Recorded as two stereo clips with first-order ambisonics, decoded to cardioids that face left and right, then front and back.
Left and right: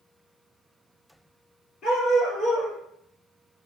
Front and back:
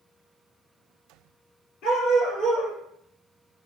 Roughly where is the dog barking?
Ahead left.